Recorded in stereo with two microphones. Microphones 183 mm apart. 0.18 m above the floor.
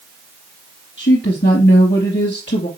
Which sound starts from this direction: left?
A woman speaking, at 1.0 s.